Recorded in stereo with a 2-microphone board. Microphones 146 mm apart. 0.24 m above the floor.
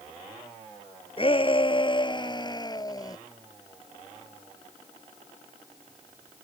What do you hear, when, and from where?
1.2 s a shout: 40° left (ahead or behind); by 3.2 s 25° left (ahead or behind)